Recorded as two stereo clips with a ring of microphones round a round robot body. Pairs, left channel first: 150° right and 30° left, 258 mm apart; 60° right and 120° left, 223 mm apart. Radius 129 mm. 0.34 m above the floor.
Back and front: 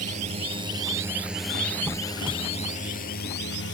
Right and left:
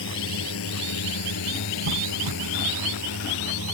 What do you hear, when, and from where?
0.0 s a drone: 35° right; by 3.8 s 105° right
1.9 s a squeak: 110° left